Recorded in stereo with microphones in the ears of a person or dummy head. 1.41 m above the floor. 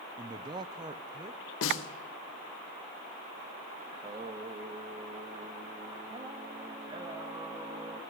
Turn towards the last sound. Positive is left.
turn(degrees=-30)  # may be behind; listen again after turning